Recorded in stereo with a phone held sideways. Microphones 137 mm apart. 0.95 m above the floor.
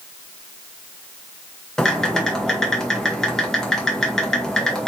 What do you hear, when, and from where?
1.8 s typing on a keyboard: 5° left (ahead or behind), 1.6 m